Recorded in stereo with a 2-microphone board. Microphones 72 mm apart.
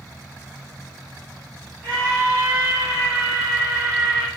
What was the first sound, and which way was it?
A scream, 20° left (ahead or behind).